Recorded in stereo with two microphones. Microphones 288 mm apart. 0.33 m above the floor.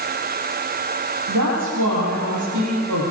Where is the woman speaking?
85° right, 8.5 m.